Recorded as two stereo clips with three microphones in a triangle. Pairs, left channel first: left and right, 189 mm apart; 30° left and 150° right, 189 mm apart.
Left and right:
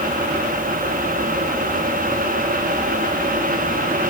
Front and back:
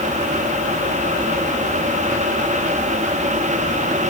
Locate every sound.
Only background noise.